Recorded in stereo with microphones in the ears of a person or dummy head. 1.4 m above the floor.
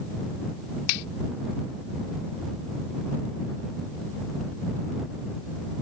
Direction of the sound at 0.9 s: 80° left.